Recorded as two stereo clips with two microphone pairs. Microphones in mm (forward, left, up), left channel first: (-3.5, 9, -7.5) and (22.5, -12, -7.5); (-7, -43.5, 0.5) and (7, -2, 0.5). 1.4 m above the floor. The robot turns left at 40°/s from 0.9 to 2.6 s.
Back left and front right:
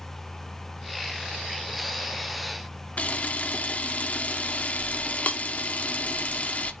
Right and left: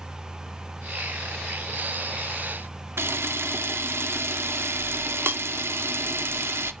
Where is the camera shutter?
100° left, 0.7 m.